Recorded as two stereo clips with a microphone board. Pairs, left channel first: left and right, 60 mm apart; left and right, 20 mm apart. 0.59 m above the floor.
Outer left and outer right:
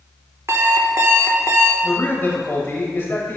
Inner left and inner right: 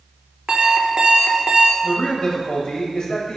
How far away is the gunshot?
No gunshot in this recording.